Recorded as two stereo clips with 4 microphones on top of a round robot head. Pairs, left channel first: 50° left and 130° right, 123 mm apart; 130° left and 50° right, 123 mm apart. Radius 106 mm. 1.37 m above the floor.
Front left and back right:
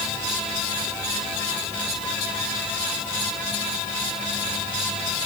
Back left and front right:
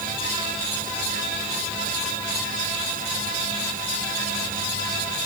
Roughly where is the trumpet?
I don't hear a trumpet.